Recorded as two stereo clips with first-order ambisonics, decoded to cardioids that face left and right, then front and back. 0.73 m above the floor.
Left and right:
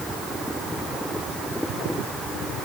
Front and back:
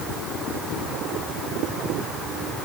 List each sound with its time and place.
Only background noise.